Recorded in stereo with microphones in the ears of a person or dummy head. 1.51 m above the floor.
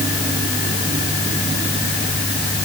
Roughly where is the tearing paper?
I don't hear tearing paper.